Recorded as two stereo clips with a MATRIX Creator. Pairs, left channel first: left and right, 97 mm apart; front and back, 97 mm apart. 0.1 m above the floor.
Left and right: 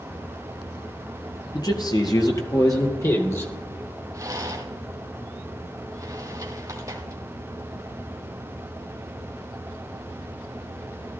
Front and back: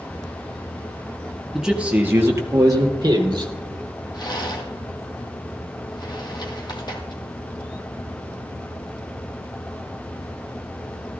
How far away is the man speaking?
About 1.7 m.